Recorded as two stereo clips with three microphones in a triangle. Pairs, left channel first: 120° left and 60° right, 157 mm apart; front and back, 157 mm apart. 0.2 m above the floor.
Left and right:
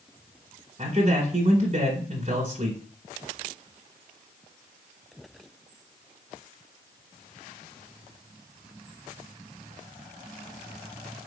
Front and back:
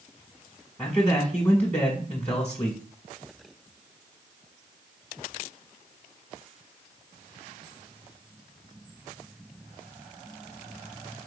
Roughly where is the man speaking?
Right.